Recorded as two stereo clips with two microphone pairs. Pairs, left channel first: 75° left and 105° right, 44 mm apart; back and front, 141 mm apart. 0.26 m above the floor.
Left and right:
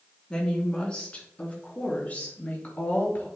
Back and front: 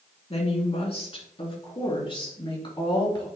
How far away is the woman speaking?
About 2.5 m.